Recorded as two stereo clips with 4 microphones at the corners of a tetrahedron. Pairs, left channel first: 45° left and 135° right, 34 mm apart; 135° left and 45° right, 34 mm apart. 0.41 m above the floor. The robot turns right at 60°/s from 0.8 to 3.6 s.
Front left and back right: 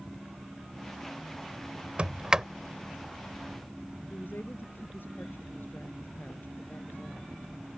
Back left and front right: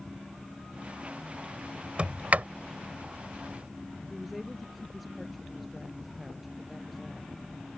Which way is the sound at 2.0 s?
90° right.